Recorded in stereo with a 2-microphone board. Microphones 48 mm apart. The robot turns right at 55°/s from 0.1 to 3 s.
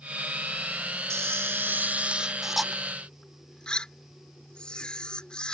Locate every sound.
1.1 s a camera shutter: 85° right; by 5.5 s 20° left